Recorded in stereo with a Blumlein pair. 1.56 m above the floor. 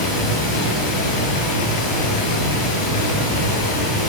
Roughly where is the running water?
Ahead left.